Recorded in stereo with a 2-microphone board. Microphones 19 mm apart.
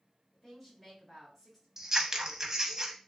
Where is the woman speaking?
20° left (ahead or behind), 1.6 m.